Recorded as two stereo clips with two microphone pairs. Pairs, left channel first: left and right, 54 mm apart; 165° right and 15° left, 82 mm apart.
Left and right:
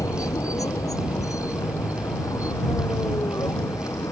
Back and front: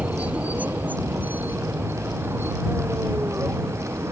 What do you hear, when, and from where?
0.0 s a vehicle: 90° left; by 4.1 s 75° left